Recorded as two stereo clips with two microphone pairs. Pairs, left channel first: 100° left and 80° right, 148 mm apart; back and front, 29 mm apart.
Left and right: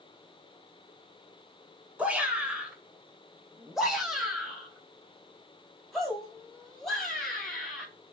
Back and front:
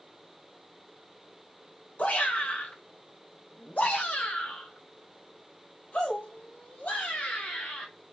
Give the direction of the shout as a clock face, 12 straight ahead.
5 o'clock.